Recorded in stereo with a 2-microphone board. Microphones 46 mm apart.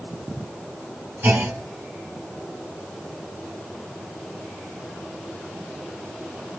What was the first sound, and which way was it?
A clunk, 50° right (ahead or behind).